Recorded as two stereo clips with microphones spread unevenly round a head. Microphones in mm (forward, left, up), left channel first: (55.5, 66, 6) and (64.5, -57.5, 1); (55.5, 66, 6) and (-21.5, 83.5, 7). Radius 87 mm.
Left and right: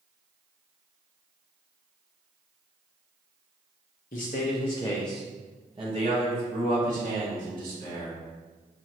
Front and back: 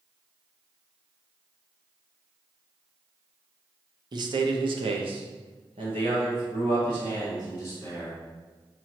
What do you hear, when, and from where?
4.1 s a man speaking: 135° left, 0.8 m; by 8.2 s 120° right, 2.0 m